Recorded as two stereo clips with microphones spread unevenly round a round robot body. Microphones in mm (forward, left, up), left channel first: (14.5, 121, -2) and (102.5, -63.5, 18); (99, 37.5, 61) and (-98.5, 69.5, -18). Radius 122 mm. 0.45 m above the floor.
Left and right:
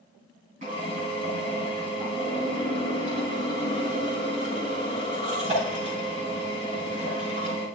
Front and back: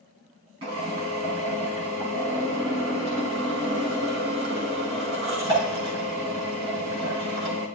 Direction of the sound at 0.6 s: 130° right.